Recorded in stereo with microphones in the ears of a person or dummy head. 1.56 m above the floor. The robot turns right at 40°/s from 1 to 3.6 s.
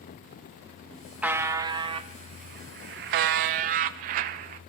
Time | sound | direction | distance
1.2 | a buzzer | 165° right | 0.7 m